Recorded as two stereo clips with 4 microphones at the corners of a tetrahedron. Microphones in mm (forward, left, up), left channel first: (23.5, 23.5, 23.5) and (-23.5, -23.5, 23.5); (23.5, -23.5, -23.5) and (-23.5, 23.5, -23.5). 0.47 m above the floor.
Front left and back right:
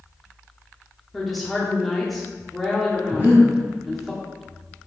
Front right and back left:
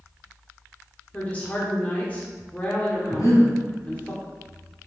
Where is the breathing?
75° right, 2.0 m.